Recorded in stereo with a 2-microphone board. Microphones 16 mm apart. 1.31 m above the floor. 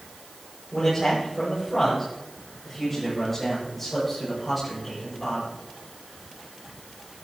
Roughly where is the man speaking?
Left.